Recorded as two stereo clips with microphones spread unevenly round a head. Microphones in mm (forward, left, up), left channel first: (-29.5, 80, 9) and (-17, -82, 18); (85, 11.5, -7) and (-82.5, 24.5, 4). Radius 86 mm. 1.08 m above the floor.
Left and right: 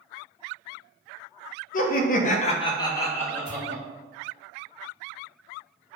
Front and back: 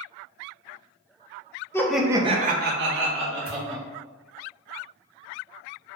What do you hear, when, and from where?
1.7 s laughter: 65° left, 0.6 m; by 3.8 s straight behind, 1.4 m
3.5 s a pop: 45° left, 1.7 m